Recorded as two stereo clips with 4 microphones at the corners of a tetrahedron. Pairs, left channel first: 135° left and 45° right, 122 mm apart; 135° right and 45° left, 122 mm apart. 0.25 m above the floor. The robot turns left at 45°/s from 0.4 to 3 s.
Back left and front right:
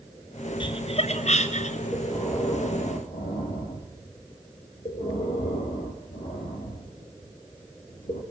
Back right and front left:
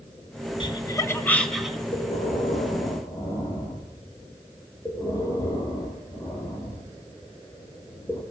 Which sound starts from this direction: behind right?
Breathing, at 1.9 s.